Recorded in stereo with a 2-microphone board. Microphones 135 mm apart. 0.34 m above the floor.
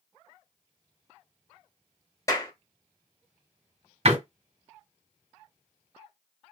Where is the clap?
25° left (ahead or behind), 1.3 m.